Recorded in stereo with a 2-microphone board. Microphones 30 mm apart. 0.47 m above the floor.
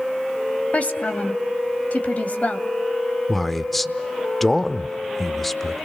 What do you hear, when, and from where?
0.7 s a woman speaking: 50° left (ahead or behind), 2.5 m
3.3 s a man speaking: 5° left (ahead or behind), 0.9 m